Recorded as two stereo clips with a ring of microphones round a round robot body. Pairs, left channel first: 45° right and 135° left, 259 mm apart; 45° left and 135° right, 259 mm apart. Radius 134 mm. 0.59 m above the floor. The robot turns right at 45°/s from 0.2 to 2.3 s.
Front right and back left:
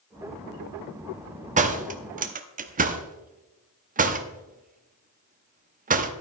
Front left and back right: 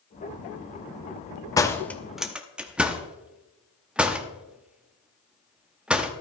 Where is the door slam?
110° left, 0.8 m; by 6.1 s 140° left, 0.8 m.